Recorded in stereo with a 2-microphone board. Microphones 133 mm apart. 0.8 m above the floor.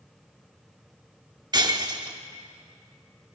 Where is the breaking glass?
30° right (ahead or behind), 0.9 m.